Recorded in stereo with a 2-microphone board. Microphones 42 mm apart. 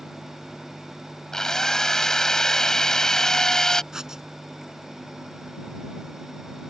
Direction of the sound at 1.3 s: 15° left (ahead or behind).